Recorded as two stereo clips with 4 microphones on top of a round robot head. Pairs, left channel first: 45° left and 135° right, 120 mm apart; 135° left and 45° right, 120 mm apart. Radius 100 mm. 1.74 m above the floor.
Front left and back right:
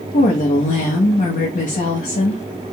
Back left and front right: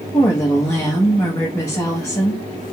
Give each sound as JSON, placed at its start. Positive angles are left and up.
{"t": 0.1, "sound": "a woman speaking", "azimuth_deg": 65, "distance_m": 0.7}